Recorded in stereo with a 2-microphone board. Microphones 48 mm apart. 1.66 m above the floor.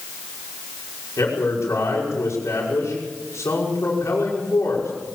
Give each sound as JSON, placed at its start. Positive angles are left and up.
{"t": 1.2, "sound": "a man speaking", "side_deg": 85, "distance_m": 5.5}